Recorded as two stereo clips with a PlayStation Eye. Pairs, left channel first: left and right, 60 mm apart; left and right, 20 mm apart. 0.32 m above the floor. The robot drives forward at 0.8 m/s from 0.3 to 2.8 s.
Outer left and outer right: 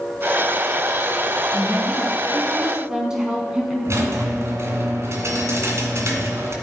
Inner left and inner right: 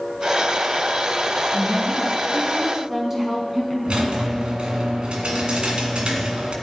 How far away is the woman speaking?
About 4.5 m.